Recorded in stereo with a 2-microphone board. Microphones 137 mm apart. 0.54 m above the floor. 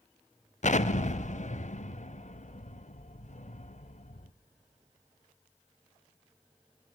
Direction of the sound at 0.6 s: 55° left (ahead or behind).